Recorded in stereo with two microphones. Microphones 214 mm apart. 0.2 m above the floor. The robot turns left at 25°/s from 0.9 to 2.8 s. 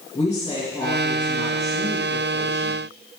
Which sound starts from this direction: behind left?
A woman speaking, at 0.1 s.